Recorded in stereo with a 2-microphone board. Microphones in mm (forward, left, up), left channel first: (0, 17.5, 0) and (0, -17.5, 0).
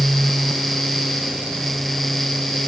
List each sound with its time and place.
Only background noise.